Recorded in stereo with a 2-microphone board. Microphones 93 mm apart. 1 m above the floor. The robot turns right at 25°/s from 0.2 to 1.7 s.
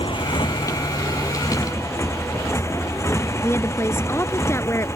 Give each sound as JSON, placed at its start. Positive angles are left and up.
{"t": 0.0, "sound": "a motorcycle", "azimuth_deg": 110}
{"t": 3.4, "sound": "a woman speaking", "side_deg": 30}